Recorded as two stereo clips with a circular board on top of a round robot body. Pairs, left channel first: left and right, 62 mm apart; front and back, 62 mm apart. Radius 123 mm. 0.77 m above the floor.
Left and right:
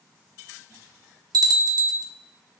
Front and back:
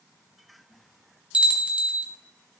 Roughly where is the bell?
Right.